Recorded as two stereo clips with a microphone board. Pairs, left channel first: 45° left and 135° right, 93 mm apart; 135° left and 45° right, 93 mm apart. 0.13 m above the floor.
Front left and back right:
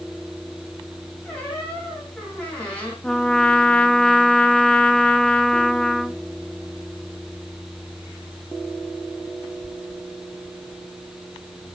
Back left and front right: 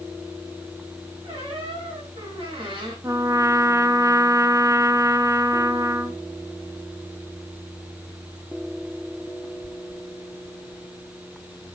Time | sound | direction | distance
1.2 | a squeak | 30° right | 5 m
3.0 | a trumpet | 30° right | 0.6 m